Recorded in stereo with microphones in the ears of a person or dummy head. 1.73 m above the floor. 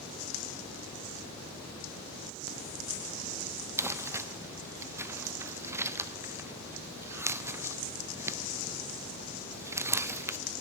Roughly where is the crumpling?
Centre.